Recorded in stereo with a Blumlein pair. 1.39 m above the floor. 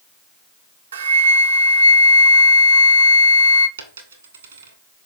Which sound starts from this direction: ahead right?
A flute, at 0.9 s.